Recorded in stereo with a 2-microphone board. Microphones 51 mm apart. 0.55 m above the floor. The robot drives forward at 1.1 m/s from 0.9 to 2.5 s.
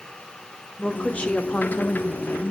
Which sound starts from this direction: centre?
A woman speaking, at 0.8 s.